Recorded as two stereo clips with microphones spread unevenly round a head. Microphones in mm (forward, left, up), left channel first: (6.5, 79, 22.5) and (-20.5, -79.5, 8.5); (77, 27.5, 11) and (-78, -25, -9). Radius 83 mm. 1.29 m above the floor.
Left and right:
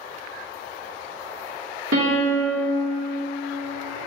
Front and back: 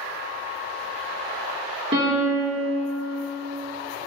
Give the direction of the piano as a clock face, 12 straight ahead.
3 o'clock.